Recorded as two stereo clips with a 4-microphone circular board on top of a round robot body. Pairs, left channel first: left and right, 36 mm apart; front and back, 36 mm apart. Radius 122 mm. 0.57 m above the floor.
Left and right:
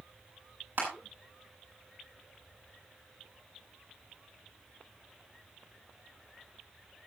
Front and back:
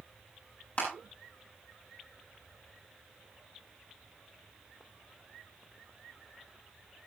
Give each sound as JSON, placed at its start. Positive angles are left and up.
{"t": 0.8, "sound": "crushing", "azimuth_deg": -50, "distance_m": 9.0}